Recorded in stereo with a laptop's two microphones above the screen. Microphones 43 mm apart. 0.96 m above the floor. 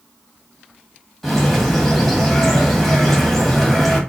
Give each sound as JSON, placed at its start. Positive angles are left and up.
{"t": 1.2, "sound": "a bird", "side_deg": 10, "distance_m": 1.3}